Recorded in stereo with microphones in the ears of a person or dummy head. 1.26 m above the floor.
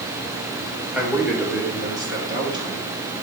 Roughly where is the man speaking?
Centre.